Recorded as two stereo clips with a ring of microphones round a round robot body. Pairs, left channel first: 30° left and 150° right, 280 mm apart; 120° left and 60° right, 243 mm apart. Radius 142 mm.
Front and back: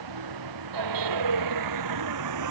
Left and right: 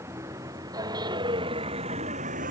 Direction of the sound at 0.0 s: 140° right.